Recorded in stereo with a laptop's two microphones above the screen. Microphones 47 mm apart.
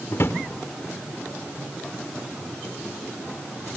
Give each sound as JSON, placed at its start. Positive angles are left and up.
{"t": 0.1, "sound": "a drawer", "side_deg": 65, "distance_m": 1.4}